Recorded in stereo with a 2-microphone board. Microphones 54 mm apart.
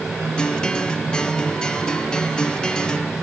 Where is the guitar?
15° left (ahead or behind).